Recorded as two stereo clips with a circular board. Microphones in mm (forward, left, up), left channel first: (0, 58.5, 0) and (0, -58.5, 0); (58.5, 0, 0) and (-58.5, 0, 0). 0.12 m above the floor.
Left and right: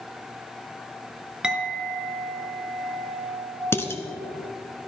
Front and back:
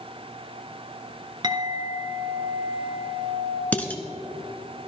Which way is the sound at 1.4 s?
170° right.